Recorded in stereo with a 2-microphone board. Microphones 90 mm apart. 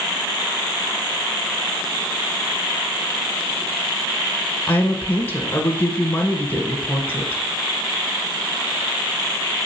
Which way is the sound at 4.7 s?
20° left (ahead or behind).